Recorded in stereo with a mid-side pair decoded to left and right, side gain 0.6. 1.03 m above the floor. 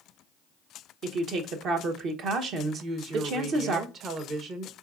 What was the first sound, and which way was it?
A woman speaking, 60° right.